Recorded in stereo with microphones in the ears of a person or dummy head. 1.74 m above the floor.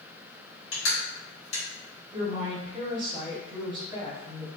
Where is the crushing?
65° left (ahead or behind), 1.9 m.